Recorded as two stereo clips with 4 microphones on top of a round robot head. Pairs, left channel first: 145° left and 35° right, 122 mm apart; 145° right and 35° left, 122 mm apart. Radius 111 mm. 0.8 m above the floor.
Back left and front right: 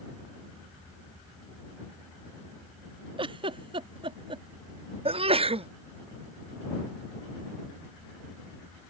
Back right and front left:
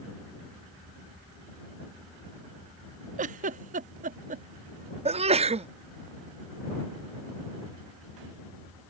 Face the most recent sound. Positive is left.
turn(degrees=5)